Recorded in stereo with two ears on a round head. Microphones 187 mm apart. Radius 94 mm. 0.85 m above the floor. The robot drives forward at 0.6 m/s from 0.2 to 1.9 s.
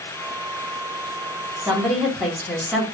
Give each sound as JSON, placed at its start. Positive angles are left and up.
{"t": 1.6, "sound": "a woman speaking", "side_deg": 0, "distance_m": 1.1}